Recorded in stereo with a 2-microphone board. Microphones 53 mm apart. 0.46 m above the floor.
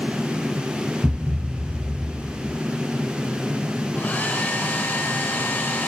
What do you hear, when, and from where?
1.0 s a thud: 20° right (ahead or behind), 0.5 m
3.9 s a hair dryer: 35° left (ahead or behind), 1.5 m